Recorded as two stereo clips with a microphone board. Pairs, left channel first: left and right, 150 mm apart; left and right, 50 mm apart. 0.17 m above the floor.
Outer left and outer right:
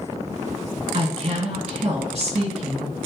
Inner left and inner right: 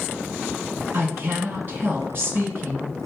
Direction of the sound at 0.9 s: 45° right (ahead or behind).